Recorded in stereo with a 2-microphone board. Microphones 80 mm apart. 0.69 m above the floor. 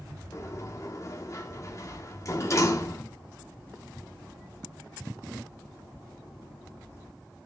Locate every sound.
0.3 s a sliding door: 40° left (ahead or behind), 1.2 m